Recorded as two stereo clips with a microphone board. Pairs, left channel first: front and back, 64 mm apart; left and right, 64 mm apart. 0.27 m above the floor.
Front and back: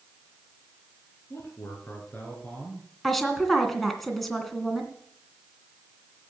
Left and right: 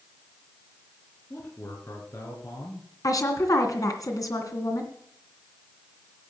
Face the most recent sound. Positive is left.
turn(degrees=85)